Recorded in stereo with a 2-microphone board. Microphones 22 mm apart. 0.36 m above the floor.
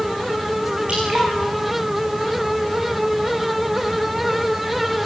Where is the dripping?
75° right (ahead or behind), 10 m.